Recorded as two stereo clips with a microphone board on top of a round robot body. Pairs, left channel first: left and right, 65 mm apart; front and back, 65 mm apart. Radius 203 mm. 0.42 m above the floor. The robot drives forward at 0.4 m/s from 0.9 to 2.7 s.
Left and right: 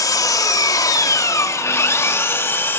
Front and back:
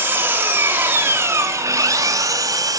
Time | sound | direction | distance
0.0 | an engine running | 120° left | 0.9 m